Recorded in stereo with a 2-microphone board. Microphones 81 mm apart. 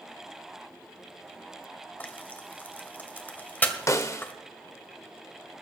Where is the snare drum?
35° left (ahead or behind), 0.9 m.